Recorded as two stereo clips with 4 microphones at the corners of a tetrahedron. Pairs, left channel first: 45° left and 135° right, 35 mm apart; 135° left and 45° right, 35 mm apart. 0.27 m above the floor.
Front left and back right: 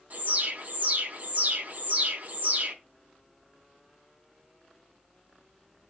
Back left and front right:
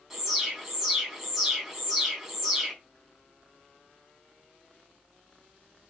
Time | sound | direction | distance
0.1 | an alarm | 120° right | 3.5 m